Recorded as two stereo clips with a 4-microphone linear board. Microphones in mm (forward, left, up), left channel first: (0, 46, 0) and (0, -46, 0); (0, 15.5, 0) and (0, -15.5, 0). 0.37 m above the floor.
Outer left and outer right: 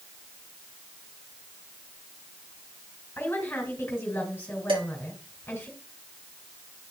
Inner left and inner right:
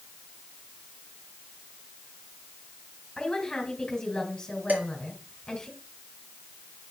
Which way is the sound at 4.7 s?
75° right (ahead or behind).